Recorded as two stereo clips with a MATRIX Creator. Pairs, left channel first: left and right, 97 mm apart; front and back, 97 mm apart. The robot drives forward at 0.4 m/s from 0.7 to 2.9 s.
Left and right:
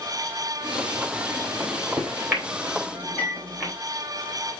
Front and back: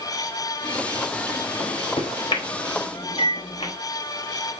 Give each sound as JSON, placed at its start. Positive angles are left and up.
{"t": 1.6, "sound": "a microwave", "azimuth_deg": -20, "distance_m": 4.0}